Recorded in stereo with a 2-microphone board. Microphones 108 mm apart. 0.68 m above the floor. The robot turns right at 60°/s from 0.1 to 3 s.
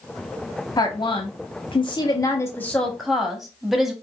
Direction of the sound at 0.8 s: 50° left.